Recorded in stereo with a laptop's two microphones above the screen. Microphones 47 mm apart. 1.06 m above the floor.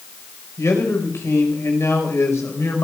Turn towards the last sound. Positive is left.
turn(degrees=70)  # may be behind; listen again after turning